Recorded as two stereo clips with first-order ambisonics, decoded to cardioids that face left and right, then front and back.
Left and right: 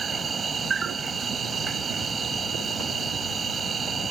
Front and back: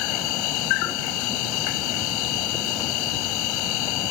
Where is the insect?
20° right.